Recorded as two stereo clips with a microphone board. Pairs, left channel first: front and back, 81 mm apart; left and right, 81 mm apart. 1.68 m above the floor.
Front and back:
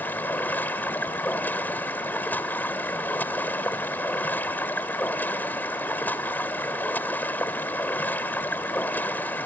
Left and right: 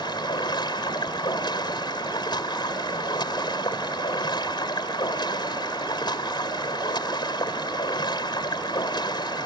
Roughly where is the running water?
Ahead left.